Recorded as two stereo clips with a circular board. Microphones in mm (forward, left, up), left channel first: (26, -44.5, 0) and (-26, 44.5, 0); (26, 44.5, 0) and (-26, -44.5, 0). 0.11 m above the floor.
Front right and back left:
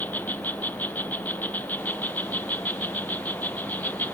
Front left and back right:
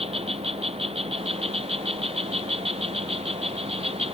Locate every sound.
0.0 s an insect: 135° right